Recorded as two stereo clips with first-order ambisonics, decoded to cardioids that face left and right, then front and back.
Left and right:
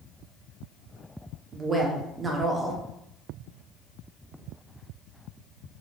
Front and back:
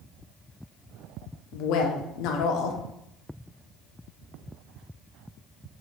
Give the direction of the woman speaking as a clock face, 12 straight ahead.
1 o'clock.